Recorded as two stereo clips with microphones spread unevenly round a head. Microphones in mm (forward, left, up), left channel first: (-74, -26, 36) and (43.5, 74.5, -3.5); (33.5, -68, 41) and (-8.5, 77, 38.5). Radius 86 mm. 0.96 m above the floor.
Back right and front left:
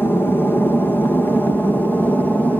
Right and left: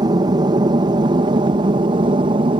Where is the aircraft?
135° left; by 2.6 s 130° left.